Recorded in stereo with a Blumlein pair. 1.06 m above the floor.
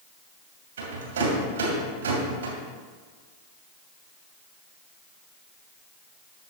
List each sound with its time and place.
0.8 s a rattle: 60° right, 2.5 m